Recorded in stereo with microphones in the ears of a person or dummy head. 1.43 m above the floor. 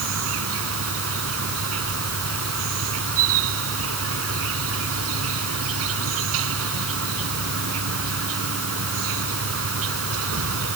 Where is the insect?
85° right.